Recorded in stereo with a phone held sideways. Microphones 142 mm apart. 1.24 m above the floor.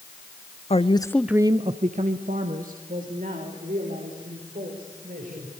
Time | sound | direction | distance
0.7 | a woman speaking | 50° left (ahead or behind) | 1.0 m